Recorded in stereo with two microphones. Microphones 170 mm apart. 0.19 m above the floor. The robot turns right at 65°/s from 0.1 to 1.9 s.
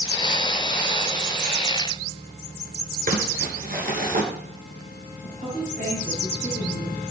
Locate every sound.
3.1 s crumpling: 55° right (ahead or behind), 1.9 m
5.2 s a woman speaking: 55° right (ahead or behind), 6.5 m